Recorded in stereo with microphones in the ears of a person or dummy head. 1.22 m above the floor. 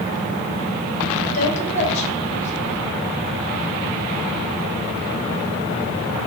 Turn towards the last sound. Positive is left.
turn(degrees=40)  # may be behind; listen again after turning